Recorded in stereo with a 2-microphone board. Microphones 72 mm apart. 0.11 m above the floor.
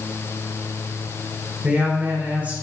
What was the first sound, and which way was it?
A woman speaking, 20° right (ahead or behind).